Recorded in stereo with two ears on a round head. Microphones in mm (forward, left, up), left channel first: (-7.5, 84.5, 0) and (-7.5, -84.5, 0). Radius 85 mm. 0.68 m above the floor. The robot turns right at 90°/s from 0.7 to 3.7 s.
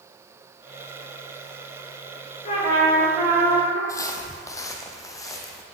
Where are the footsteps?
20° left (ahead or behind), 1.2 m.